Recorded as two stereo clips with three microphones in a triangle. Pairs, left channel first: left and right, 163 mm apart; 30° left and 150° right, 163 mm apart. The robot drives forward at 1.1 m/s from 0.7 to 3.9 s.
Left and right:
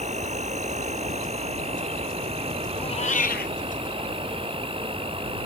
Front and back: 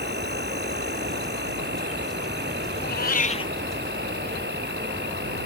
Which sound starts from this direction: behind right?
An insect, at 0.0 s.